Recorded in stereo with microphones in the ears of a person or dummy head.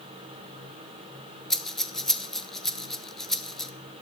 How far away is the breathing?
About 0.7 m.